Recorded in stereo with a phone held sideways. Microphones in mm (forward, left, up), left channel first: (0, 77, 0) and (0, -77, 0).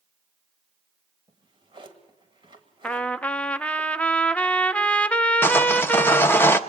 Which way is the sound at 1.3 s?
35° right (ahead or behind).